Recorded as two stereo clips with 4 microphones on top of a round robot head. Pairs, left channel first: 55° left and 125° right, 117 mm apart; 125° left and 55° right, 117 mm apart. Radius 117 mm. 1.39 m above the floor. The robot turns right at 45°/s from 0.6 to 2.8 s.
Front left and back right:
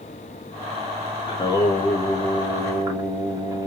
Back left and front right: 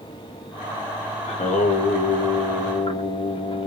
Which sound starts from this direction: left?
Singing, at 1.3 s.